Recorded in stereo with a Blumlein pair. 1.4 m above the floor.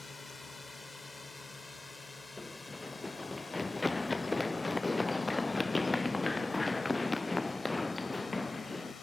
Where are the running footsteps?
10° left.